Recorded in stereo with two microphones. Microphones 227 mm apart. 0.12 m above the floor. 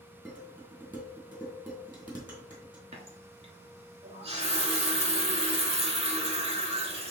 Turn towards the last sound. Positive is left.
turn(degrees=-30)  # may be behind; listen again after turning